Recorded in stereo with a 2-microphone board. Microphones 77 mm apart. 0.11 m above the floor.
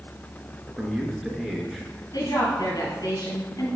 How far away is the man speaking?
About 1.6 m.